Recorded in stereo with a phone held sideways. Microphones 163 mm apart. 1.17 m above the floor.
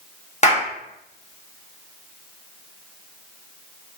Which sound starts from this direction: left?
A clap, at 0.4 s.